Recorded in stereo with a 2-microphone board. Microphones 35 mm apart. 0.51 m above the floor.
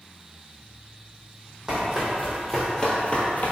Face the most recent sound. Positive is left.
turn(degrees=50)  # may be behind; listen again after turning